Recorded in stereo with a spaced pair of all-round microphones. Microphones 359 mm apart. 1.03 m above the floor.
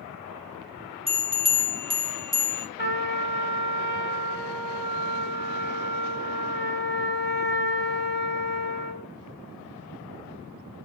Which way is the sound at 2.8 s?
30° left (ahead or behind).